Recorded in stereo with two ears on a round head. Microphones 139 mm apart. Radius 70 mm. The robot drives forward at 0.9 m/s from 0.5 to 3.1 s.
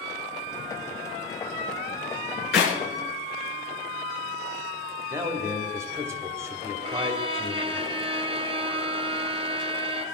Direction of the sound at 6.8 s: 35° right (ahead or behind).